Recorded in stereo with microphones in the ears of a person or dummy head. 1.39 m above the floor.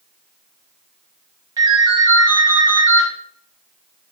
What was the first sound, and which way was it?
A ringtone, 20° right (ahead or behind).